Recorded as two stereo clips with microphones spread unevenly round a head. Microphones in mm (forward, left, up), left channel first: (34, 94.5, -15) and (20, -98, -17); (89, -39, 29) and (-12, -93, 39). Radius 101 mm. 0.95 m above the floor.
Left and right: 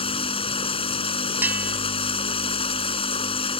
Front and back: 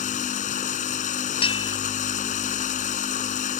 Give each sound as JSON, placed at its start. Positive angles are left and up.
{"t": 0.0, "sound": "running water", "azimuth_deg": 25}
{"t": 1.4, "sound": "a bell", "azimuth_deg": -15}